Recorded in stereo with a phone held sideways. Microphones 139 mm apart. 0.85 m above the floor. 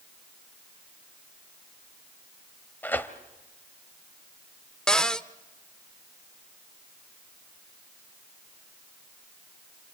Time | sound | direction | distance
2.8 | tearing paper | 15° left (ahead or behind) | 1.3 m
4.9 | a cupboard door | 5° left (ahead or behind) | 0.6 m